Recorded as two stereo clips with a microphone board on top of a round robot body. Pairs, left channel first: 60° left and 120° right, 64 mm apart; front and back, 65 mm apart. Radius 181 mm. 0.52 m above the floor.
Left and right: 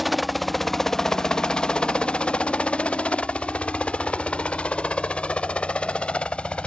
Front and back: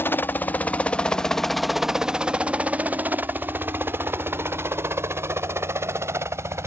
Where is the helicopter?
30° right; by 6.7 s 135° left.